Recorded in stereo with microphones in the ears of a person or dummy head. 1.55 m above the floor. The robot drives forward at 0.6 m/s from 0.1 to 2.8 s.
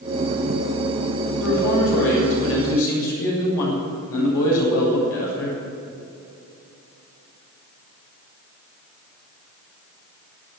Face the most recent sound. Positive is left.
turn(degrees=85)